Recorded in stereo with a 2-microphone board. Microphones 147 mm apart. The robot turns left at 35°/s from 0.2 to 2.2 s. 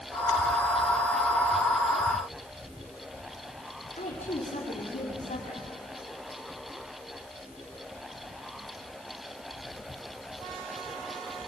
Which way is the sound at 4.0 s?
60° left (ahead or behind).